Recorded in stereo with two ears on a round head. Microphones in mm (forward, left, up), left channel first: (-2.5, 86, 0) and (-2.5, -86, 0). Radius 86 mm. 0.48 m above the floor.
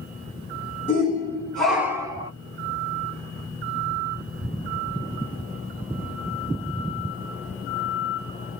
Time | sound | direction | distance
0.9 | a shout | 25° left (ahead or behind) | 1.5 m